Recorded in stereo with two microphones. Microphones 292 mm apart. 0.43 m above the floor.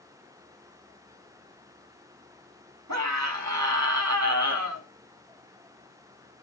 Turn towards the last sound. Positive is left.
turn(degrees=-70)  # may be behind; listen again after turning